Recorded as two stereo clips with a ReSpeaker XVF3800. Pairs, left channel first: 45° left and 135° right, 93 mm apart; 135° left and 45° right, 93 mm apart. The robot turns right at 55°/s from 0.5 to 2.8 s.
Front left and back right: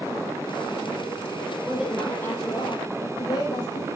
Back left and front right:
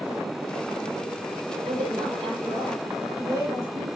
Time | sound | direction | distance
1.6 | a woman speaking | 55° right | 6 m